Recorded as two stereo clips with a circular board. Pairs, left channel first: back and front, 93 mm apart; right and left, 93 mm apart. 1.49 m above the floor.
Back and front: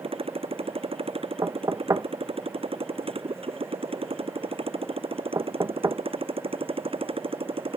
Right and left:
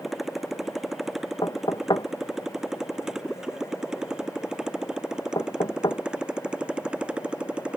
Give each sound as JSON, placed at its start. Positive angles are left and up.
{"t": 0.0, "sound": "a motorcycle", "azimuth_deg": 5}
{"t": 1.4, "sound": "knocking", "azimuth_deg": -55}